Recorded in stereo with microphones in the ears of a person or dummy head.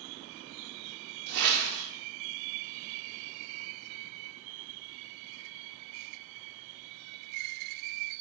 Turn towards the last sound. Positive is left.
turn(degrees=-60)  # may be behind; listen again after turning